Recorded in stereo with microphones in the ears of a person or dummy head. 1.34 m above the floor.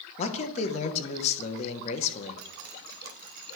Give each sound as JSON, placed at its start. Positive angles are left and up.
{"t": 0.2, "sound": "a man speaking", "side_deg": 40, "distance_m": 1.0}
{"t": 2.4, "sound": "dripping", "side_deg": -45, "distance_m": 0.8}